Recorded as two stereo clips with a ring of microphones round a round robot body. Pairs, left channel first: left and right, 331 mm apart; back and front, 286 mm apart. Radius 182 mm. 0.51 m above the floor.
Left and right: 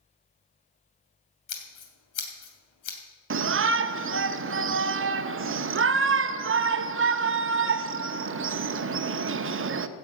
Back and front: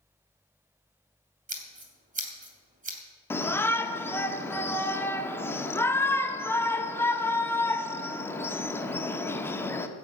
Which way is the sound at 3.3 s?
105° right.